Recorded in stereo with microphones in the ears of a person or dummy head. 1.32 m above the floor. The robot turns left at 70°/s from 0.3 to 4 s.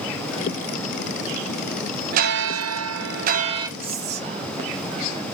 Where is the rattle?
I don't hear a rattle.